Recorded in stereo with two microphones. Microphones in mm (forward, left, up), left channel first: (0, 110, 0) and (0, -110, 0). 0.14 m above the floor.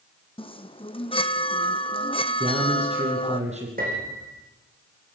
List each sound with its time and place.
0.4 s a chime: 25° left (ahead or behind), 1.0 m
2.4 s a man speaking: 30° right (ahead or behind), 5.5 m
3.8 s a piano: 40° right (ahead or behind), 6.5 m